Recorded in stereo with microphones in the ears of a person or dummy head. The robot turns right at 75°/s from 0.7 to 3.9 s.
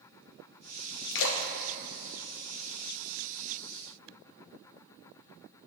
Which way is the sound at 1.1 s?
65° left (ahead or behind).